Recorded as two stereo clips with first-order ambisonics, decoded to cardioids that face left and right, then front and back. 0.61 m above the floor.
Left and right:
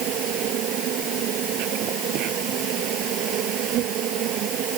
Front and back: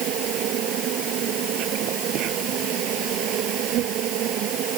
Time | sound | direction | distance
0.0 | an insect | 135° right | ?